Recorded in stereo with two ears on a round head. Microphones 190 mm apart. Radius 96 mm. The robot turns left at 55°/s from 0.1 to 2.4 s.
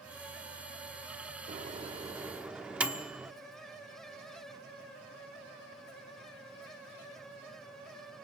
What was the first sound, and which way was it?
A microwave, 35° right (ahead or behind).